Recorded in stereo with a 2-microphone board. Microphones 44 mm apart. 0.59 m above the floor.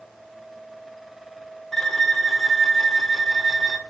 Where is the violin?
5° left (ahead or behind), 1.4 m.